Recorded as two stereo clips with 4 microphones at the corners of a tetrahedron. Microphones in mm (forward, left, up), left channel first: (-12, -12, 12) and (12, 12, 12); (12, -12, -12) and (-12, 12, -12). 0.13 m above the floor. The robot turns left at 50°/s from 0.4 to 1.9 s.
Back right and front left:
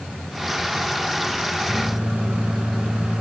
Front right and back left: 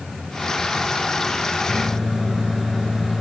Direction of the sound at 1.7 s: 65° left.